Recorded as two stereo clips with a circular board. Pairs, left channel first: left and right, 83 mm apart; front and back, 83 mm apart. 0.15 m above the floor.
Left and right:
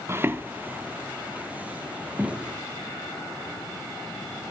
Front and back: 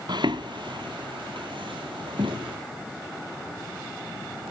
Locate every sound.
0.1 s footsteps: 150° right, 0.6 m; by 2.6 s 165° right, 3 m